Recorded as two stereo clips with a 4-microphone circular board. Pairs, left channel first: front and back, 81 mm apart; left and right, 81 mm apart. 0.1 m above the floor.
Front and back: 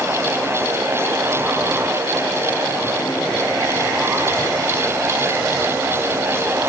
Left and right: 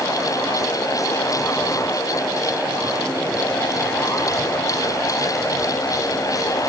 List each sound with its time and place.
Only background noise.